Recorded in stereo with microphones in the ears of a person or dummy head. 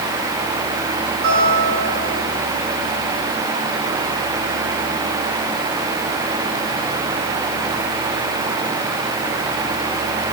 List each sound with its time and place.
1.2 s a guitar: 60° right (ahead or behind), 4 m